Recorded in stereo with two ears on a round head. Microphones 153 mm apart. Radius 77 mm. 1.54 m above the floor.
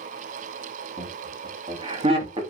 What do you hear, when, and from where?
1.0 s laughter: 35° right (ahead or behind), 2.5 m